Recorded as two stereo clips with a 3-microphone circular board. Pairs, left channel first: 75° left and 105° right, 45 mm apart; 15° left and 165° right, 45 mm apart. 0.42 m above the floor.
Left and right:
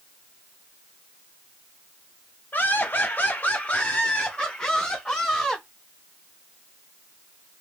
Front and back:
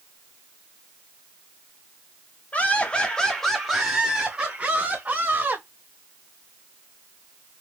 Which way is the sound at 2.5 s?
55° left.